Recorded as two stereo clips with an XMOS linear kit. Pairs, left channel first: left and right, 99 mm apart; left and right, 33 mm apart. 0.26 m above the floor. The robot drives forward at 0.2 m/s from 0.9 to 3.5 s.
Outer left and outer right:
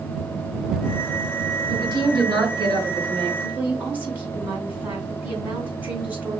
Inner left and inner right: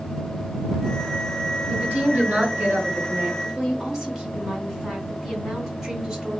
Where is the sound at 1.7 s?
60° right (ahead or behind), 2.5 m.